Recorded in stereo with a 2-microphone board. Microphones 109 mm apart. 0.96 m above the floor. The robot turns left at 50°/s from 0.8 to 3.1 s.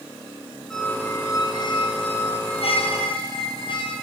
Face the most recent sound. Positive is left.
turn(degrees=55)